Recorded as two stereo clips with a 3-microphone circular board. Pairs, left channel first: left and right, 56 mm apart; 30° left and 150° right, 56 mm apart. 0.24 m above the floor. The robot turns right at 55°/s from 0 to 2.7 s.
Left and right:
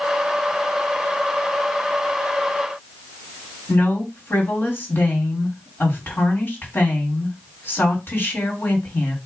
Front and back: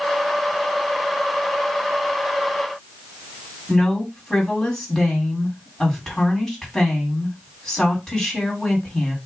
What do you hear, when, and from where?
3.7 s a woman speaking: 105° left, 2 m